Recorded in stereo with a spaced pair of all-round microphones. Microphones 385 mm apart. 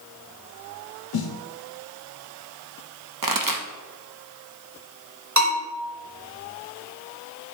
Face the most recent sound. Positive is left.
turn(degrees=-45)  # may be behind; listen again after turning